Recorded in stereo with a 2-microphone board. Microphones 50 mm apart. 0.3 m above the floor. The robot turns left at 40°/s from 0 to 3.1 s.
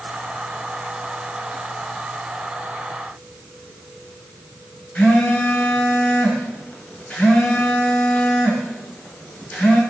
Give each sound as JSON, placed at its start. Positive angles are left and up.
{"t": 5.0, "sound": "a phone buzzing", "side_deg": 35, "distance_m": 1.1}